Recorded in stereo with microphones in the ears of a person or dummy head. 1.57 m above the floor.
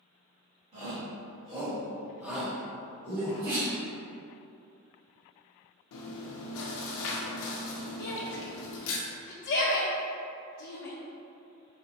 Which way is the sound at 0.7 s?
40° right (ahead or behind).